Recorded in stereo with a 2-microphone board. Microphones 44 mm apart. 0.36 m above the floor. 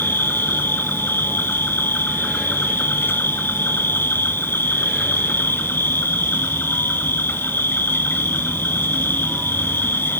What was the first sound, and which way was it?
An insect, 60° left (ahead or behind).